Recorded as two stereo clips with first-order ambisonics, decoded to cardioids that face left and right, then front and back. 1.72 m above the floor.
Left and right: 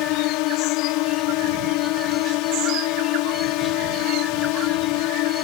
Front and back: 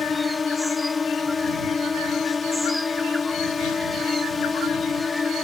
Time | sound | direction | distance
0.0 | a drone | 75° left | ?